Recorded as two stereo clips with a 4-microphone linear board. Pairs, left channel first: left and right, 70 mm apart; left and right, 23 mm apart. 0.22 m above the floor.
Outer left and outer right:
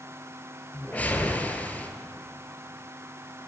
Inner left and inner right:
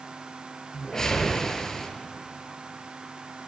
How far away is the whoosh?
About 0.7 m.